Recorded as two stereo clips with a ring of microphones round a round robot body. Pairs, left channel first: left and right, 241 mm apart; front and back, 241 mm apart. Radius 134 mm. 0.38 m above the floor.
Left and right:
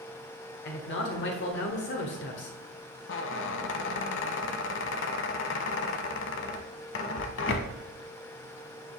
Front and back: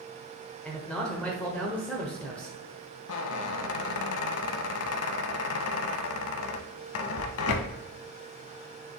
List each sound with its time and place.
0.7 s a man speaking: 85° left, 1.1 m
3.1 s a squeak: 40° left, 0.5 m